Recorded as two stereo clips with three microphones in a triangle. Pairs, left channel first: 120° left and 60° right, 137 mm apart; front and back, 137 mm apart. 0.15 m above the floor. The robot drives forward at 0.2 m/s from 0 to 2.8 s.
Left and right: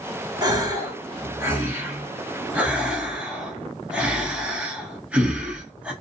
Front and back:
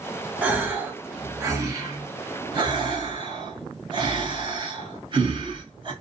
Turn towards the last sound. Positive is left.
turn(degrees=-140)